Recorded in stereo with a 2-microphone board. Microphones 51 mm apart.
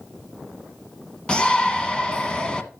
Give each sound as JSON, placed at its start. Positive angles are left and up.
{"t": 1.3, "sound": "a shout", "side_deg": 20, "distance_m": 1.1}